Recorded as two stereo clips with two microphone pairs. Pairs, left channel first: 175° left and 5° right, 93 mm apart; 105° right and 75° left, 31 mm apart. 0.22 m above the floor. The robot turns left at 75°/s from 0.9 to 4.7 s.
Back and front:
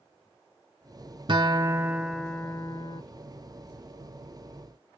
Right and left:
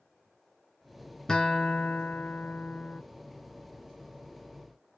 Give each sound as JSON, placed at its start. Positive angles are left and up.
{"t": 1.3, "sound": "a guitar", "azimuth_deg": -35, "distance_m": 0.7}